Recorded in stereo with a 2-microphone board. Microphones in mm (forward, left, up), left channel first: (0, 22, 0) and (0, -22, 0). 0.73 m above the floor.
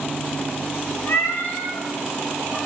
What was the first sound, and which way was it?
A cat meowing, 75° left (ahead or behind).